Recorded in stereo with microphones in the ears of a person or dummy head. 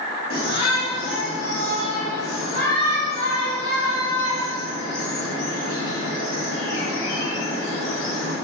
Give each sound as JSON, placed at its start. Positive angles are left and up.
{"t": 0.3, "sound": "a shout", "side_deg": 55, "distance_m": 2.5}